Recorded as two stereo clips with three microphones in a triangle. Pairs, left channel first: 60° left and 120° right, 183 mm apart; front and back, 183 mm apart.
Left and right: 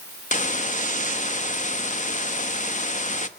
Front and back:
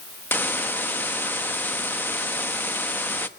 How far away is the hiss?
About 1.0 m.